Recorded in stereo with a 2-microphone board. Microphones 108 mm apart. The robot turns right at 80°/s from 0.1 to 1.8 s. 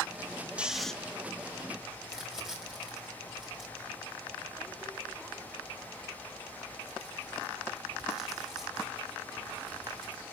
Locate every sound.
0.6 s snoring: 10° right (ahead or behind), 1.1 m; by 0.9 s 5° left (ahead or behind), 1.1 m
2.0 s crumpling: 5° right (ahead or behind), 5 m